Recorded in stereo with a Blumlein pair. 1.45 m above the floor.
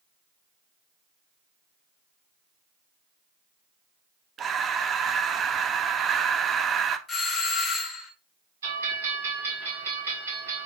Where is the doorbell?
15° left, 1.5 m.